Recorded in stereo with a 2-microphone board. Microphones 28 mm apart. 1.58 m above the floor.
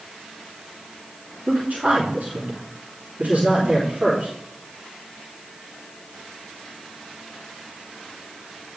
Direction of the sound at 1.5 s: 70° right (ahead or behind).